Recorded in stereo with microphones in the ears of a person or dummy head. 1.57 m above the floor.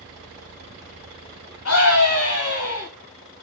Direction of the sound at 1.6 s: 70° left (ahead or behind).